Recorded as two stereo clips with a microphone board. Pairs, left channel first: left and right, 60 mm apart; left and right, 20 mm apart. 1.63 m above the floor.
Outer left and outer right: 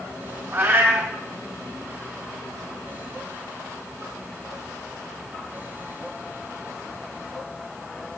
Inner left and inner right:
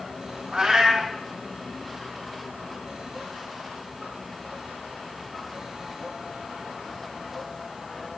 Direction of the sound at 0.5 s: 45° right (ahead or behind).